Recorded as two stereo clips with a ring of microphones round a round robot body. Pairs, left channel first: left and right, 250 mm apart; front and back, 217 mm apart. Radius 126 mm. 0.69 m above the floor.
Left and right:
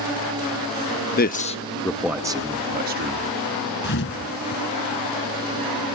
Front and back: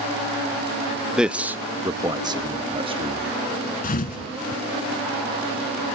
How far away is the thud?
About 1.1 m.